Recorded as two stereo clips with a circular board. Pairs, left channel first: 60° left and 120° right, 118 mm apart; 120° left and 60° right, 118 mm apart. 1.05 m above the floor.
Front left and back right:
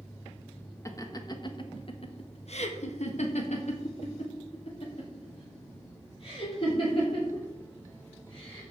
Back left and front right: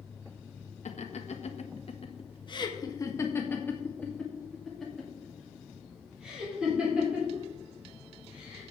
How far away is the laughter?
About 1.3 m.